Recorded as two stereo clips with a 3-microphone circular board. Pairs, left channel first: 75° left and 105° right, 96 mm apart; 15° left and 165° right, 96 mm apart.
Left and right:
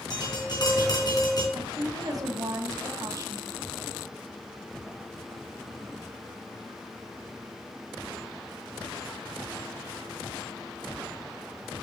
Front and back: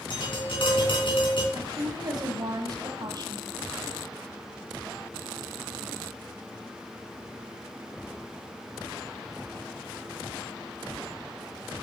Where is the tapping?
35° left, 4 m.